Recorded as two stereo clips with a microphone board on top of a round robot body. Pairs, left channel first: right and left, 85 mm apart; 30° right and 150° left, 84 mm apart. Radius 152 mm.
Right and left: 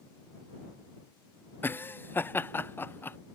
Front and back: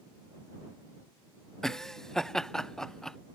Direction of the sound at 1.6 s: 105° right.